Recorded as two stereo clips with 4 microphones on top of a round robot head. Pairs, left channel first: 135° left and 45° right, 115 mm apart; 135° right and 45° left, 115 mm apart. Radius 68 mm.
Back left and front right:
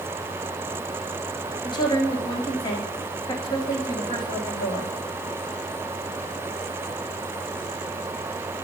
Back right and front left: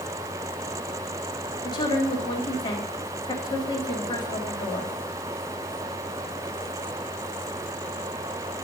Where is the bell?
No bell in this recording.